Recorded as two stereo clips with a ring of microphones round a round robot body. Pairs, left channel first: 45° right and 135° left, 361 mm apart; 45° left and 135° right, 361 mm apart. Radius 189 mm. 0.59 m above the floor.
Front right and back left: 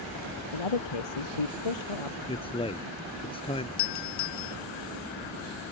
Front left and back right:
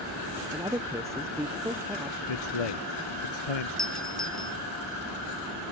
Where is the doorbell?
45° right.